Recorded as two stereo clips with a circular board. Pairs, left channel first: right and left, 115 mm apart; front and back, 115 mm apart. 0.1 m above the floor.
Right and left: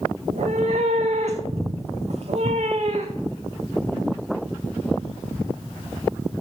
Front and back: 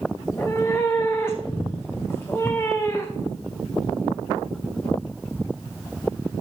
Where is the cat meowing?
70° left, 1.1 m.